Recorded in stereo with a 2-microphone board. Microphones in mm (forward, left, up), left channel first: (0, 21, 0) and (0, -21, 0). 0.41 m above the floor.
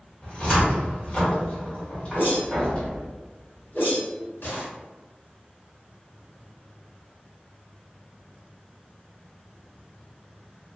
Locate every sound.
0.2 s a cupboard door: 30° left (ahead or behind), 1.2 m
2.1 s a whoosh: 70° left (ahead or behind), 1.2 m